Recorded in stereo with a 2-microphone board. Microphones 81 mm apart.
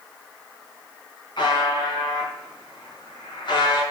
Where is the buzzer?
75° left (ahead or behind), 4.5 m.